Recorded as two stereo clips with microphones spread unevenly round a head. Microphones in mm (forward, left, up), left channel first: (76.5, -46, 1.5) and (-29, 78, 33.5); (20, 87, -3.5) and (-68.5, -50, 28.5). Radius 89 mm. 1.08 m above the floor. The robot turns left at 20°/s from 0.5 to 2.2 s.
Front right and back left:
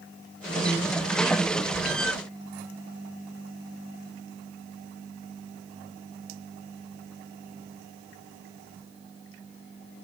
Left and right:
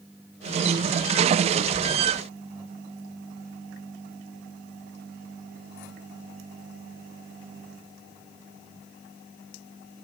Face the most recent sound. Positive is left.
No sound to turn to.